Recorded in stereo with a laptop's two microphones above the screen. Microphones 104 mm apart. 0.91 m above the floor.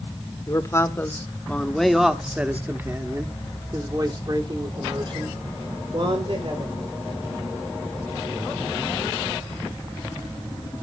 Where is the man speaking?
30° left (ahead or behind), 1.5 m; by 6.8 s 60° right (ahead or behind), 3 m.